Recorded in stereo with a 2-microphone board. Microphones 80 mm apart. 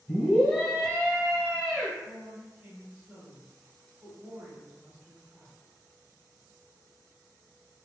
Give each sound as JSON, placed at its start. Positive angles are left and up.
{"t": 0.1, "sound": "a scream", "side_deg": 5, "distance_m": 1.4}
{"t": 2.0, "sound": "a woman speaking", "side_deg": -15, "distance_m": 1.3}